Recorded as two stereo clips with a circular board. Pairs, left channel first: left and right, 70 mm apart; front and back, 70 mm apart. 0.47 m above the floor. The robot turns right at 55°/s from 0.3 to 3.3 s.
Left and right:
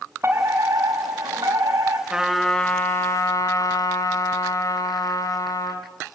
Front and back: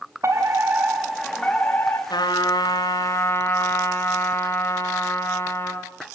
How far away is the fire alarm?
About 6 m.